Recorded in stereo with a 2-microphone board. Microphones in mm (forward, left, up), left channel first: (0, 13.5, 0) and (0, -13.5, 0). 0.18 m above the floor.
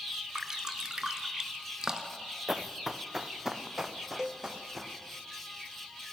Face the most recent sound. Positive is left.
turn(degrees=-5)  # may be behind; listen again after turning